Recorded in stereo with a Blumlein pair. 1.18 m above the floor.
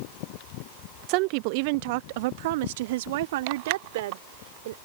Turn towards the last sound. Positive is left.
turn(degrees=-55)